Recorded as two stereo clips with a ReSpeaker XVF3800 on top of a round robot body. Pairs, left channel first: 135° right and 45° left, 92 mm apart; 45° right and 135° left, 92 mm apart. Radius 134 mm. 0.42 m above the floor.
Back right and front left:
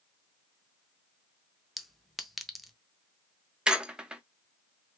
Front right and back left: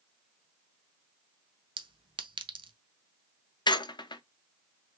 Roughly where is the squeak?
Ahead right.